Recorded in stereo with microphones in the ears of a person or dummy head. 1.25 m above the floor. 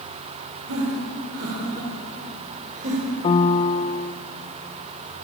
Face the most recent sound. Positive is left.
turn(degrees=25)  # may be behind; listen again after turning